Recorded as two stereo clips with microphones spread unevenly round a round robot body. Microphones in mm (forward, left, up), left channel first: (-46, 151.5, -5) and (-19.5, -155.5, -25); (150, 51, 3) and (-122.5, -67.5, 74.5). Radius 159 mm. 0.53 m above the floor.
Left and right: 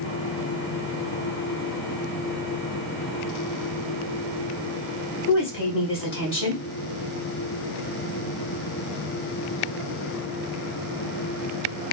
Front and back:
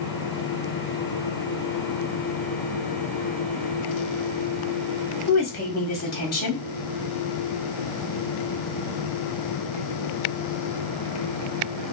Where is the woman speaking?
50° left, 1.6 m.